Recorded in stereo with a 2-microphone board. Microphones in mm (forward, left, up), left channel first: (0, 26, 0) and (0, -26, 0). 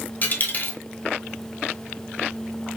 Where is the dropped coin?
40° left (ahead or behind), 1.2 m.